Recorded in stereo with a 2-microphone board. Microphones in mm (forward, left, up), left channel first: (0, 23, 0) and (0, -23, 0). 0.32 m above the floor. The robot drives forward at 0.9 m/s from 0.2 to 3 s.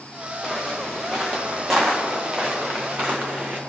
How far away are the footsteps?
About 4 m.